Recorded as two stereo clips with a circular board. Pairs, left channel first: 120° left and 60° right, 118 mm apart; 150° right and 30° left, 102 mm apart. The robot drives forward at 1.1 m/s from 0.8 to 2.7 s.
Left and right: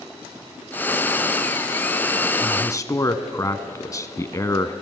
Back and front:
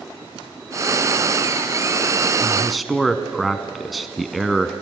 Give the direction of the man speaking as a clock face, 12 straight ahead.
9 o'clock.